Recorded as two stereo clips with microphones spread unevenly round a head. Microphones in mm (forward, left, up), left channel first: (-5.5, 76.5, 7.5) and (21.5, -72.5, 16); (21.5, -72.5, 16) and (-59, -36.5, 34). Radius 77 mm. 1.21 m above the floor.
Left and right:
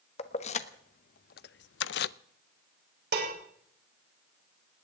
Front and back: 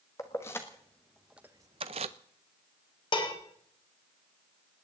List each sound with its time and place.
0.2 s keys jangling: 50° left, 1.3 m; by 2.1 s 135° left, 0.5 m
3.1 s dishes clattering: 55° right, 3.5 m